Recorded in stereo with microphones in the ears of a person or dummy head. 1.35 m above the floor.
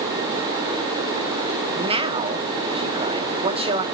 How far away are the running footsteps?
No running footsteps in this recording.